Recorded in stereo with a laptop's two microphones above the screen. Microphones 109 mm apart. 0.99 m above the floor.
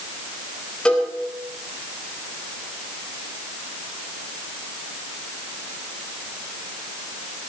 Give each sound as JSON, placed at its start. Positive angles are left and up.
{"t": 0.8, "sound": "a cowbell", "side_deg": 10, "distance_m": 5.0}